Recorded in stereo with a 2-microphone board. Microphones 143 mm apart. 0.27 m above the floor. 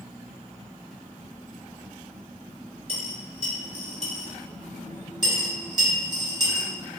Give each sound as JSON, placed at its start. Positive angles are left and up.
{"t": 2.9, "sound": "a dropped coin", "side_deg": 35, "distance_m": 1.3}
{"t": 5.2, "sound": "a dropped coin", "side_deg": -30, "distance_m": 1.0}